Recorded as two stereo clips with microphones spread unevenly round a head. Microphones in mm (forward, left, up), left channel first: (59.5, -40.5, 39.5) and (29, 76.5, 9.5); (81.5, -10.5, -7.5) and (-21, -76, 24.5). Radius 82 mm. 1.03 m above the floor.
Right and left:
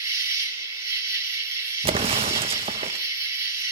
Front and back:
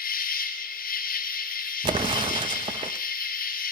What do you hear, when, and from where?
0.0 s an insect: 35° left, 4 m
1.8 s an explosion: 145° left, 0.8 m